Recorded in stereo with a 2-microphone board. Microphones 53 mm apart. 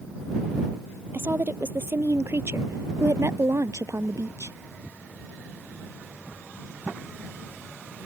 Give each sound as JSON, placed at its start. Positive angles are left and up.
{"t": 1.1, "sound": "a woman speaking", "side_deg": -45}